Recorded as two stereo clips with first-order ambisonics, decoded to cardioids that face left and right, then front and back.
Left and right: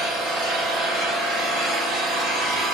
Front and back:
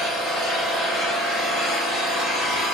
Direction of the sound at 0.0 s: 130° right.